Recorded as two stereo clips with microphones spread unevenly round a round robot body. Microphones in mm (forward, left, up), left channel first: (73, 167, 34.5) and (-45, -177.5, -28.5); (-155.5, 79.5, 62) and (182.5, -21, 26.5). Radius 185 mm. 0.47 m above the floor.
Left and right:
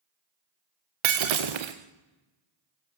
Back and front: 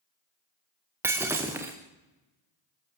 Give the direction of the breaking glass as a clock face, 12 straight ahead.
3 o'clock.